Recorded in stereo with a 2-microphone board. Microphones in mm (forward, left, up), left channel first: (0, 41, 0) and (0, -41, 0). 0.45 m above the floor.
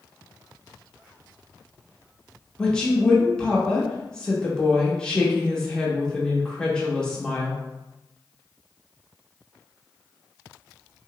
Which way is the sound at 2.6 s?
10° left (ahead or behind).